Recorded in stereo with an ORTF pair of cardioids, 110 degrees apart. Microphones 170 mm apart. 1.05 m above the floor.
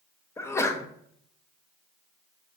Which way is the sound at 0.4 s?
15° left.